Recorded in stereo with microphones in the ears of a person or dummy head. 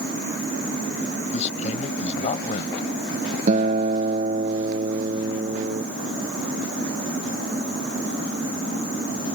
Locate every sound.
1.3 s a man speaking: 35° left (ahead or behind)
3.5 s a guitar: 35° right (ahead or behind)